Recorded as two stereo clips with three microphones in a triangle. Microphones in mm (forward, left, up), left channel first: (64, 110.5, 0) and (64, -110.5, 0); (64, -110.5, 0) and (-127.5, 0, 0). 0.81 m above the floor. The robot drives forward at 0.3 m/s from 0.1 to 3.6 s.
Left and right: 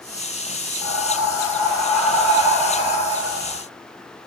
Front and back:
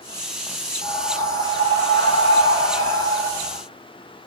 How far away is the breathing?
About 1.5 m.